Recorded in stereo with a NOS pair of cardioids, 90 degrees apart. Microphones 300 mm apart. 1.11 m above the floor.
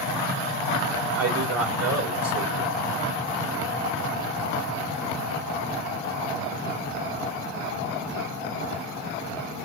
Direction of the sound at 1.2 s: 55° right.